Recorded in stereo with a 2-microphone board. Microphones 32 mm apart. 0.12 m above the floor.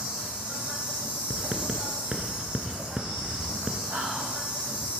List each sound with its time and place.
0.0 s an insect: 40° right (ahead or behind), 3.5 m
1.3 s writing: 30° right (ahead or behind), 1.2 m
3.9 s whispering: 75° right (ahead or behind), 6.5 m